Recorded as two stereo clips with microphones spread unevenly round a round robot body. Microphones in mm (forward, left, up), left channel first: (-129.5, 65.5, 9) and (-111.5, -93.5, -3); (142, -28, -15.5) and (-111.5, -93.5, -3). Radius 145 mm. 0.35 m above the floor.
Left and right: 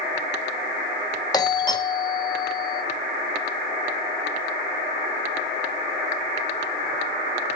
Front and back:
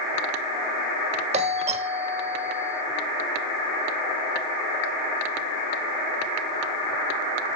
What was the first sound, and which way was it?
A doorbell, 145° left.